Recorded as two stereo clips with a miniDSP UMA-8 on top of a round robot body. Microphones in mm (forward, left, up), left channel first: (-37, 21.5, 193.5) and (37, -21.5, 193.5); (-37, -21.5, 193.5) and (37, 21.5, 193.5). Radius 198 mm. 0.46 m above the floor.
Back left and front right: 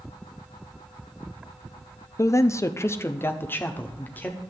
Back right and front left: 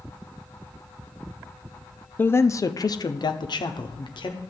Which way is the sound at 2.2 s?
160° left.